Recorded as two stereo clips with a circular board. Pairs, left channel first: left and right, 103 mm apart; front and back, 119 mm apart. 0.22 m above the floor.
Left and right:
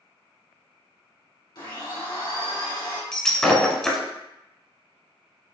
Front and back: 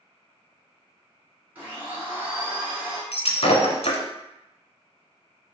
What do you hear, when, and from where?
1.6 s a blender: 110° left, 1.9 m
3.1 s breaking glass: 5° left, 0.8 m